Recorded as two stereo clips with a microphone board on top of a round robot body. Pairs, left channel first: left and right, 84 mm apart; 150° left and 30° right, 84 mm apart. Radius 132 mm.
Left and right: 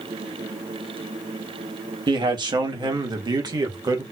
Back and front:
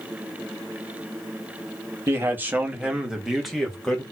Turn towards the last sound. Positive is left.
turn(degrees=-130)